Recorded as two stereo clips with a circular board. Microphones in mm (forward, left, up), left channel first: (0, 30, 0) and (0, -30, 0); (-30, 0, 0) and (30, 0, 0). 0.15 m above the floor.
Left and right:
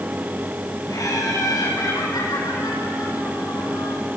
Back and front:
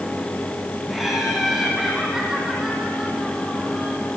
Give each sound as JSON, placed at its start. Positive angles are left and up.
{"t": 0.9, "sound": "laughter", "azimuth_deg": 90, "distance_m": 4.5}